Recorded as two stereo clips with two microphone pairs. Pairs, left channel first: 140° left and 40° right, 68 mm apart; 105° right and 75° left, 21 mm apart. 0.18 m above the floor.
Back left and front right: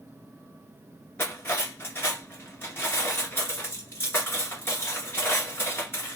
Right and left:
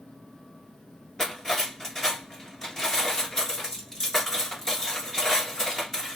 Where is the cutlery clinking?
170° right, 1.7 m.